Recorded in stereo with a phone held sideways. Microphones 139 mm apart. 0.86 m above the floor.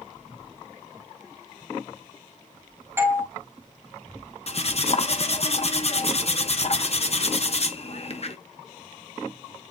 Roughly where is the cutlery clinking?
Left.